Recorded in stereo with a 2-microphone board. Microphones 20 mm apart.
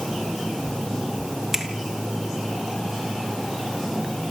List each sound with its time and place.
1.5 s a finger snap: 25° right (ahead or behind), 2.5 m